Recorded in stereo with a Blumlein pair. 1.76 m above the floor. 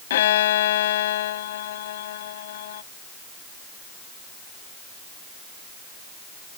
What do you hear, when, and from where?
0.1 s a violin: 55° left